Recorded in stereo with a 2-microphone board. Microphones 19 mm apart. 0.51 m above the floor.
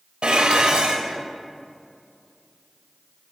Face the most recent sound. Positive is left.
turn(degrees=-65)  # may be behind; listen again after turning